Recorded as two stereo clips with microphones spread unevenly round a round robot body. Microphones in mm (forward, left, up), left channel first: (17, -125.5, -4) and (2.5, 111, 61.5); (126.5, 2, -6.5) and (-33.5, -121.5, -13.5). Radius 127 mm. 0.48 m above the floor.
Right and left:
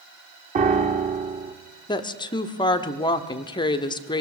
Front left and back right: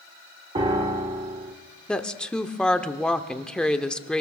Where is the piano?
160° left, 0.9 m.